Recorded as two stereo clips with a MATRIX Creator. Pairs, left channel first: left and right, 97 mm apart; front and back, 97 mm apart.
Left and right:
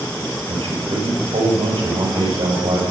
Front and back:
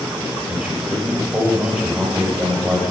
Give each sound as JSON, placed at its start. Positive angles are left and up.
{"t": 0.5, "sound": "a man speaking", "azimuth_deg": -110, "distance_m": 5.5}